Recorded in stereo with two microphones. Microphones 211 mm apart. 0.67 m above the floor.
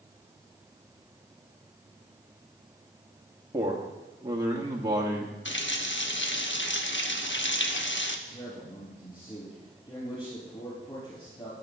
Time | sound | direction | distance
3.5 | a man speaking | 15° right (ahead or behind) | 1.3 m
5.5 | a running tap | 60° left (ahead or behind) | 0.9 m
8.3 | a man speaking | 30° left (ahead or behind) | 4.5 m